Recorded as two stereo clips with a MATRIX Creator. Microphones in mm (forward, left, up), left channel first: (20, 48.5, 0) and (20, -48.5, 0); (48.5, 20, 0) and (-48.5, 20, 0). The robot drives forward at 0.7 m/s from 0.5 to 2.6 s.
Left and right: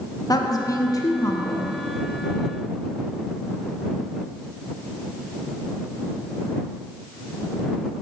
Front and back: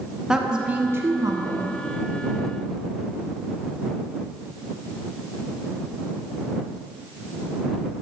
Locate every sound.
0.3 s a woman speaking: 100° left, 1.0 m; by 1.7 s 145° left, 1.3 m